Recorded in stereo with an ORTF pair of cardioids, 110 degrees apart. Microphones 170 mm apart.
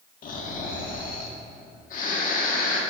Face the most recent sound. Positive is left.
turn(degrees=55)